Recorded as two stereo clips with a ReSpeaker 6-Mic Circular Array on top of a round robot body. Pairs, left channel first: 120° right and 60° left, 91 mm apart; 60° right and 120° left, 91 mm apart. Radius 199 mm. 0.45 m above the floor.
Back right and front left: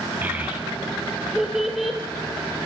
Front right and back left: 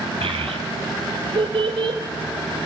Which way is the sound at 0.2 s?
130° left.